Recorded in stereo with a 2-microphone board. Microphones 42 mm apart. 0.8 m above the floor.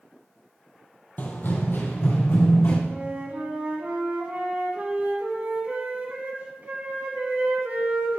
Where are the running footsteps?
40° left (ahead or behind), 1.3 m; by 2.8 s 75° left (ahead or behind), 3 m.